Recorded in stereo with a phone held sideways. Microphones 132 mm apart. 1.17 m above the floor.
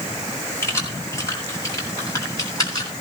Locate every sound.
0.6 s keys jangling: 20° left (ahead or behind), 7 m; by 2.9 s 30° left (ahead or behind), 8.5 m